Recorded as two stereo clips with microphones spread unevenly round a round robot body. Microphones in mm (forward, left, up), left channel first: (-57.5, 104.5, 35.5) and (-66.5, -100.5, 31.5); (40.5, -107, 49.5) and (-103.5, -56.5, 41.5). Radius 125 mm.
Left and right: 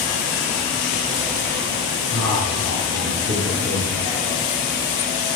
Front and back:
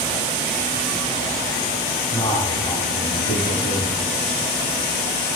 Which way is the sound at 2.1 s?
75° right.